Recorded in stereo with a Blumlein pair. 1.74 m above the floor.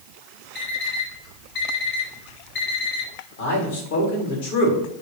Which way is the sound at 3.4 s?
55° left.